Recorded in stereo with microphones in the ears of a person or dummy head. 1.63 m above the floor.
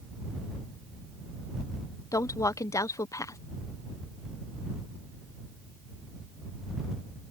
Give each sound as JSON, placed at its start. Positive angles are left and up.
{"t": 2.1, "sound": "a woman speaking", "side_deg": 15}